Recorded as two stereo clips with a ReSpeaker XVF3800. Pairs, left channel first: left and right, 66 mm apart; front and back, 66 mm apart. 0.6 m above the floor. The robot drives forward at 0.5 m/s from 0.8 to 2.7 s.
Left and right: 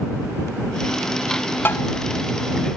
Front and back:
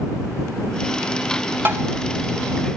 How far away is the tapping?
About 1.1 m.